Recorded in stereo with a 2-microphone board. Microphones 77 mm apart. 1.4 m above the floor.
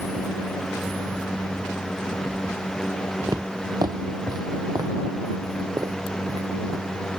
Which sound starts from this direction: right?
Footsteps, at 3.3 s.